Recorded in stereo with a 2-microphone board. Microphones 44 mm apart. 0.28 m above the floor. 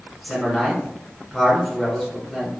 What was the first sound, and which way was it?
A man speaking, centre (ahead or behind).